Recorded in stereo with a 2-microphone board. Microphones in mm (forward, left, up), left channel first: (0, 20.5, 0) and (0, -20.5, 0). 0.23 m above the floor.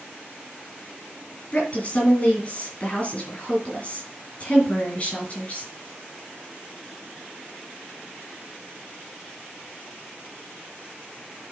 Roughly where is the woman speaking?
Left.